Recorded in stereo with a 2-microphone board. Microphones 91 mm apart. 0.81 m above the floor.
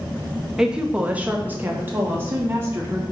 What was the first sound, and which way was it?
A woman speaking, 5° right (ahead or behind).